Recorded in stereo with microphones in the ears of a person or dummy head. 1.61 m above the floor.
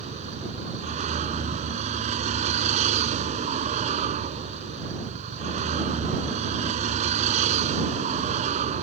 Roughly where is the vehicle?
Right.